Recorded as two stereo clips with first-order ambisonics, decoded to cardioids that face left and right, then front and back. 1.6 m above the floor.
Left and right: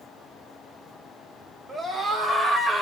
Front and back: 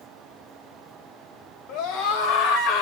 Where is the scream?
15° right, 3 m.